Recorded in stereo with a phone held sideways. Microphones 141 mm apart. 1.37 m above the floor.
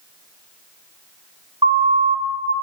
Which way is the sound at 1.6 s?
40° right (ahead or behind).